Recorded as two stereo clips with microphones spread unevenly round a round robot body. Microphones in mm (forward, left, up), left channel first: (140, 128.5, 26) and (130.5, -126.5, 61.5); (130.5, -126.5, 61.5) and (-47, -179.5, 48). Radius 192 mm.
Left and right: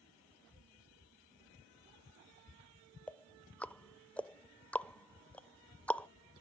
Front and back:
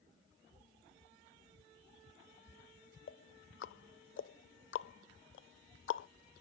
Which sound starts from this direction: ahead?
Ticking, at 3.1 s.